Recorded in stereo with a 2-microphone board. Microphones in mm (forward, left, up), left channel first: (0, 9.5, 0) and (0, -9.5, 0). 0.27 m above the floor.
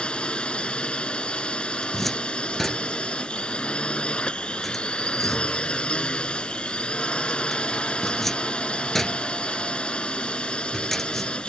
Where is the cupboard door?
15° left (ahead or behind).